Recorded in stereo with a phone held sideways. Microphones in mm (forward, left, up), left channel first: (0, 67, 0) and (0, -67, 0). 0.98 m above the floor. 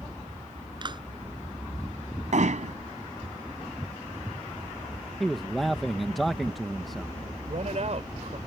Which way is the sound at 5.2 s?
Centre (ahead or behind).